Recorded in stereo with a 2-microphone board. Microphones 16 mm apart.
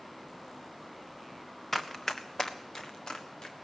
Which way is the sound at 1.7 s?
25° left (ahead or behind).